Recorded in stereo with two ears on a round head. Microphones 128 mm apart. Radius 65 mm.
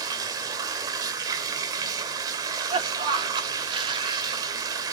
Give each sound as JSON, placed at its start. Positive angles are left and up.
{"t": 0.0, "sound": "running water", "side_deg": -25, "distance_m": 1.7}
{"t": 2.3, "sound": "a cough", "side_deg": -35, "distance_m": 4.0}